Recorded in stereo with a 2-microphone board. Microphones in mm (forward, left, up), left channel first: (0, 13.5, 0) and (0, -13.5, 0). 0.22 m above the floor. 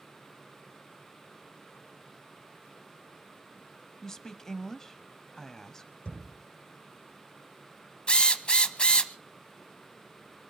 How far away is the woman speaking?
About 0.9 m.